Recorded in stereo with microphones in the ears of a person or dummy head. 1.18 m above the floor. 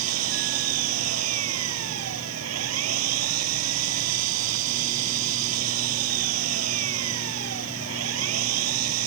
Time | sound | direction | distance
0.0 | an engine running | 90° right | ?